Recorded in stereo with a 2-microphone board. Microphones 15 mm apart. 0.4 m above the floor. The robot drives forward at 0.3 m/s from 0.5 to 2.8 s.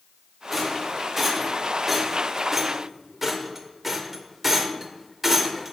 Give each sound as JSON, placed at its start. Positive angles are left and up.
{"t": 0.5, "sound": "a rattle", "side_deg": -10, "distance_m": 1.0}